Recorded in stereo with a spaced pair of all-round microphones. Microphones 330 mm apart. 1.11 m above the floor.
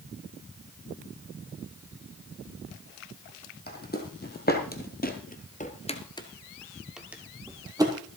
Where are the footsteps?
30° left (ahead or behind), 2.5 m; by 8.0 s 10° right (ahead or behind), 2.0 m.